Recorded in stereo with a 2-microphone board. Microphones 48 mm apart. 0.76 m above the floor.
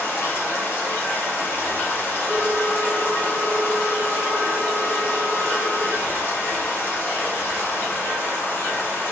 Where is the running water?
50° left (ahead or behind), 0.7 m.